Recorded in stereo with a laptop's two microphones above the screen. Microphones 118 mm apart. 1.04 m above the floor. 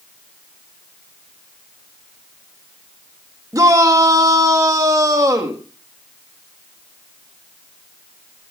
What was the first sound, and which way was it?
A shout, 30° right (ahead or behind).